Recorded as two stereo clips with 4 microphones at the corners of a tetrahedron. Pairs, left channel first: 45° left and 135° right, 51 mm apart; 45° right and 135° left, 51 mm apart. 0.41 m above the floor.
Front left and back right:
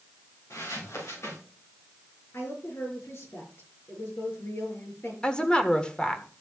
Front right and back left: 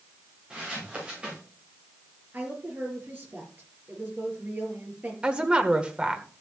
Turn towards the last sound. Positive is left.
turn(degrees=90)